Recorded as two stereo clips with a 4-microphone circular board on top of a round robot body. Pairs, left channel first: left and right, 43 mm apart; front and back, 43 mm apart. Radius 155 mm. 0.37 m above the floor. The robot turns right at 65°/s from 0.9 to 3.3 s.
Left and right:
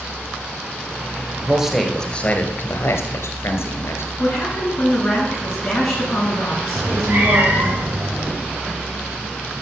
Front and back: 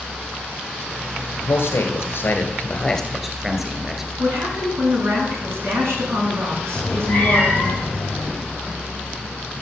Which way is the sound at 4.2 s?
175° left.